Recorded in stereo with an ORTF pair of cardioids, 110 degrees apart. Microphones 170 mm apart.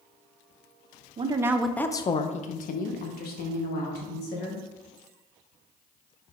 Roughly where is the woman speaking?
Ahead right.